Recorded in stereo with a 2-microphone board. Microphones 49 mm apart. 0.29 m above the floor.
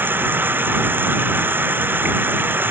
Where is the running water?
45° right (ahead or behind).